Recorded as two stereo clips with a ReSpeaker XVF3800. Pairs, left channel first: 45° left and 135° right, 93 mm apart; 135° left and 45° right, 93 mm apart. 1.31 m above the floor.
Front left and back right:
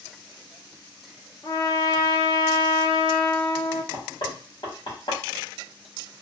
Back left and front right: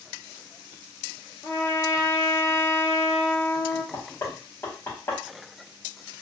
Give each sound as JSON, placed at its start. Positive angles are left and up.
{"t": 1.4, "sound": "a trumpet", "azimuth_deg": 85, "distance_m": 0.7}
{"t": 3.9, "sound": "knocking", "azimuth_deg": 75, "distance_m": 1.9}